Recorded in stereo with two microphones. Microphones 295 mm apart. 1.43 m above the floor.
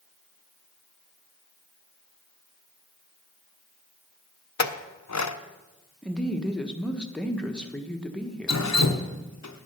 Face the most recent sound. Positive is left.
turn(degrees=65)  # may be behind; listen again after turning